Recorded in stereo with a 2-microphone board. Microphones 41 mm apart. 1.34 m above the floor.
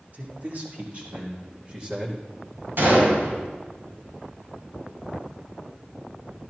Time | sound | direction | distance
0.1 | a man speaking | 55° right (ahead or behind) | 2 m
2.8 | a gunshot | 65° right (ahead or behind) | 5.5 m